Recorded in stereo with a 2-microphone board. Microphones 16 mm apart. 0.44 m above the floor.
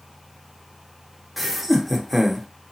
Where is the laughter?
10° right (ahead or behind), 0.7 m.